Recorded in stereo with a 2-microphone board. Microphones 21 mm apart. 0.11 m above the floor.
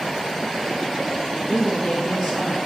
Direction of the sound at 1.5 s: 40° left (ahead or behind).